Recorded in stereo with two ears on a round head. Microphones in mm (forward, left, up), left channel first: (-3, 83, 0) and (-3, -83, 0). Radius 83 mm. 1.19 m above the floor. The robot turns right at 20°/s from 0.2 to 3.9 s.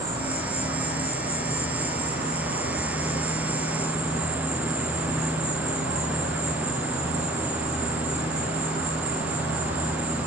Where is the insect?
160° right, 2.5 m; by 10.3 s 85° right, 2.5 m.